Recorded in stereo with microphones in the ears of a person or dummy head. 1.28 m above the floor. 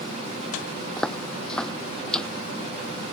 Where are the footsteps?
Centre (ahead or behind).